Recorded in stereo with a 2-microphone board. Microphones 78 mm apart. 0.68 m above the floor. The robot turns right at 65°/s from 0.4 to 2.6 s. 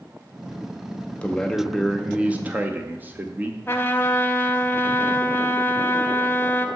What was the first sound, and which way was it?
A man speaking, 15° left (ahead or behind).